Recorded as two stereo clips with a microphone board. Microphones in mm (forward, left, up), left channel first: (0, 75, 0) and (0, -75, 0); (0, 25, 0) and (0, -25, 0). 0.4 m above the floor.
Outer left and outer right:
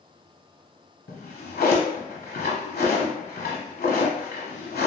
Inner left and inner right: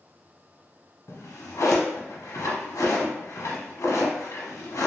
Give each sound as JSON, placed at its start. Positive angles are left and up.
{"t": 1.1, "sound": "a drawer", "side_deg": 85, "distance_m": 0.9}